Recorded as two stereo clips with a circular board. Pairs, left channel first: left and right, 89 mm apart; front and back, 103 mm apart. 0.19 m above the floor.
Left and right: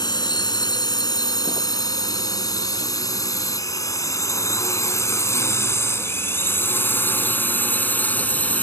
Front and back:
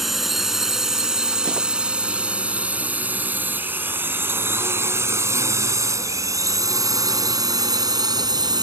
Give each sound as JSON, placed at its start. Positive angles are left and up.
{"t": 0.0, "sound": "a drone", "azimuth_deg": 90}